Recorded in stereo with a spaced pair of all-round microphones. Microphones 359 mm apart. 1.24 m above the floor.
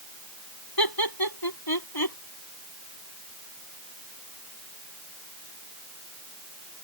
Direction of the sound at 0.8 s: 85° left.